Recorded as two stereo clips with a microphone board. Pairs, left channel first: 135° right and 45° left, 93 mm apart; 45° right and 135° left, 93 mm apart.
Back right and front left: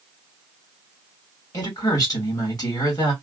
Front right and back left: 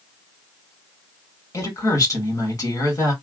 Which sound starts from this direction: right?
A woman speaking, at 1.5 s.